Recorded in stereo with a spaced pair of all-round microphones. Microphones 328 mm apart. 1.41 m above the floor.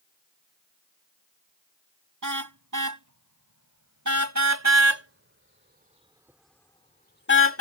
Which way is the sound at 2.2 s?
70° right (ahead or behind).